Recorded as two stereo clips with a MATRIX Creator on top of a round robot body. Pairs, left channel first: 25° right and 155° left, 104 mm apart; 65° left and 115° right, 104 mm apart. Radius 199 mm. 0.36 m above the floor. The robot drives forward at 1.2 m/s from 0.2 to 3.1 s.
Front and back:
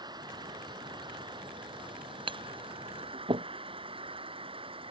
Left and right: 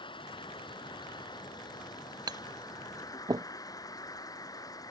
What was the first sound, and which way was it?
An insect, 110° left.